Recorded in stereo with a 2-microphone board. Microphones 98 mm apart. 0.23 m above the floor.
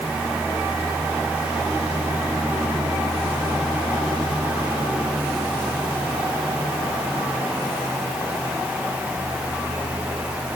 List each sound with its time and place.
Only background noise.